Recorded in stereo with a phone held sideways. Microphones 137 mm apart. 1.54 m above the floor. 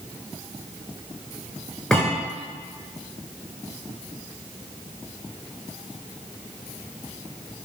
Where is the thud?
5° left (ahead or behind), 6.5 m.